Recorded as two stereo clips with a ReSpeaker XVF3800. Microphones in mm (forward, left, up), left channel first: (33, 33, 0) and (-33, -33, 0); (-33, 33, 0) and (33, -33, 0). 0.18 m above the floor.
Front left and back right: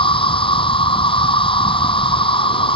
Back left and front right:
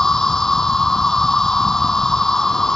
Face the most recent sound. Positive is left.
turn(degrees=50)